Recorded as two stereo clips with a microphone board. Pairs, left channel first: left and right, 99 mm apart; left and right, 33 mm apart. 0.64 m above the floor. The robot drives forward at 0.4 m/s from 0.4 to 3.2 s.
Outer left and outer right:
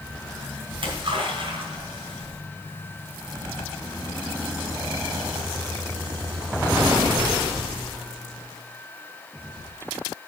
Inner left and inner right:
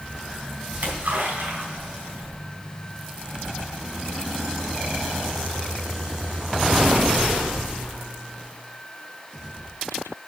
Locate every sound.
0.7 s a splash: 60° right (ahead or behind), 3.5 m; by 2.3 s 70° right (ahead or behind), 3.5 m